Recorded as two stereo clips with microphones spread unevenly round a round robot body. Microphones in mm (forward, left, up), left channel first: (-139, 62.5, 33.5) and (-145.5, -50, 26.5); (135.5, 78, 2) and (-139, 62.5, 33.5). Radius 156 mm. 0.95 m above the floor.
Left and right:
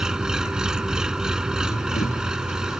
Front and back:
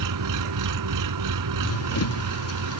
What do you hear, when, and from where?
0.0 s an engine running: straight behind
1.6 s running footsteps: 35° left; by 2.8 s 40° left